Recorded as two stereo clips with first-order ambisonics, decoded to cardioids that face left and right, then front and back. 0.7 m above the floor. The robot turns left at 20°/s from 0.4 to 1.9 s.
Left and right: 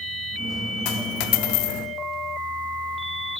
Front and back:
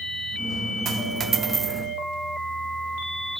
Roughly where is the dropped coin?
Behind left.